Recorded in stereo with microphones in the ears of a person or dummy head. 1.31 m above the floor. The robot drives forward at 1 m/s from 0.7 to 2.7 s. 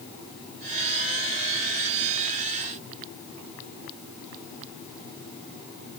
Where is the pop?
I don't hear a pop.